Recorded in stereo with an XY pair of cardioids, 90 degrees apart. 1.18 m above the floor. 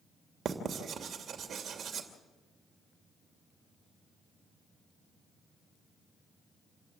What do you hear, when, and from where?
0.5 s writing: 60° right, 2.5 m